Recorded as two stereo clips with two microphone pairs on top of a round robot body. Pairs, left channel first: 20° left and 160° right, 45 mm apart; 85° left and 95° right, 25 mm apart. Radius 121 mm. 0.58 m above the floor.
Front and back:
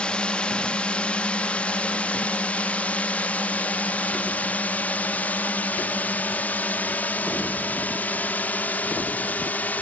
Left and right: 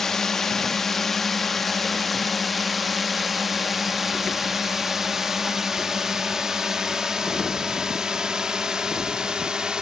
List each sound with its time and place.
0.0 s a drone: 65° left; by 9.8 s 25° right